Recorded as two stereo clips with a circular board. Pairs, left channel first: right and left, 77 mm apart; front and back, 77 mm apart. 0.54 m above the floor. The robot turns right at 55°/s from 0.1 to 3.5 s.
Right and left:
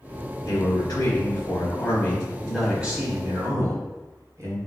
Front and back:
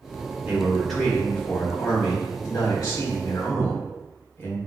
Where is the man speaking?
115° right, 1.9 m; by 4.6 s 55° left, 1.9 m.